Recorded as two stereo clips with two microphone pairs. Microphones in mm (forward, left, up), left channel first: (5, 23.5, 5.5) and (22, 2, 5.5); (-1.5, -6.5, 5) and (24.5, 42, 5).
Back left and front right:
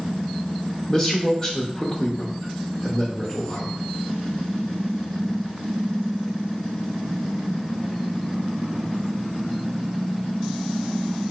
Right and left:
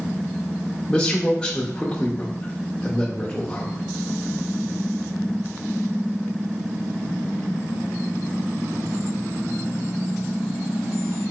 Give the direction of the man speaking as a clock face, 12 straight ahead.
6 o'clock.